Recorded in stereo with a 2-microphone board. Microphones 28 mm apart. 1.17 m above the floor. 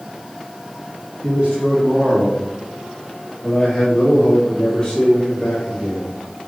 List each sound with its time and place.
1.2 s a man speaking: 55° right (ahead or behind), 2 m; by 6.2 s 30° left (ahead or behind), 4 m